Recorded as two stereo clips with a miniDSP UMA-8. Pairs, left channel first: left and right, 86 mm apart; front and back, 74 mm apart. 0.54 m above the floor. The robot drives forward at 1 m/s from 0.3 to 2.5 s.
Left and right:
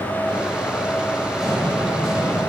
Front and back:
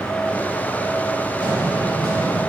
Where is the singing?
I don't hear singing.